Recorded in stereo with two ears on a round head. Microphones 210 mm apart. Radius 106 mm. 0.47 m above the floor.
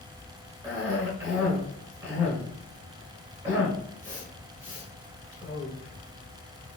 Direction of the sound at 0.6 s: 10° right (ahead or behind).